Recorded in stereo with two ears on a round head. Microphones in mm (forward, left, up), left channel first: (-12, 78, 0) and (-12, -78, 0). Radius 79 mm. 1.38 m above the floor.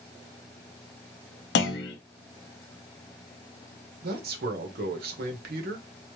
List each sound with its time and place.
1.6 s a clunk: 65° left (ahead or behind), 0.9 m
4.0 s a man speaking: 60° right (ahead or behind), 1.0 m